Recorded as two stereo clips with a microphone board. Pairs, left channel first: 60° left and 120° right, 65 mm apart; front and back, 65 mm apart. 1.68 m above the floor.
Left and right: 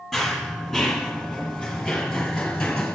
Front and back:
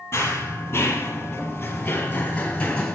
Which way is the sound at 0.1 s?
30° right.